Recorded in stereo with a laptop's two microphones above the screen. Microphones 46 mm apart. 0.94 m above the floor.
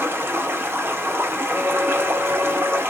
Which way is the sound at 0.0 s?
65° right (ahead or behind).